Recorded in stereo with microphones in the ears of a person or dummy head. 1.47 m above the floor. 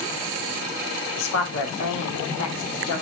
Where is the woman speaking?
85° left, 3 m; by 3.0 s 70° left (ahead or behind), 3 m.